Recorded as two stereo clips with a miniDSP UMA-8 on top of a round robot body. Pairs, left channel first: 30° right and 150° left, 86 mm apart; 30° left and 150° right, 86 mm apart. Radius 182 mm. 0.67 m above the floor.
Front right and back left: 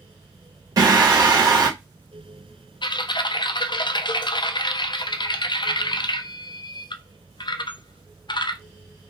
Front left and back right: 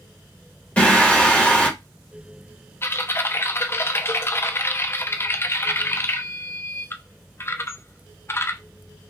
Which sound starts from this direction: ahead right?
Typing on a keyboard, at 2.8 s.